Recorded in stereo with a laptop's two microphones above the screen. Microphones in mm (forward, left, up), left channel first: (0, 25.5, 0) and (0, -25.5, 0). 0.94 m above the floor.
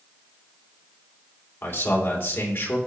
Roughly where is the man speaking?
Left.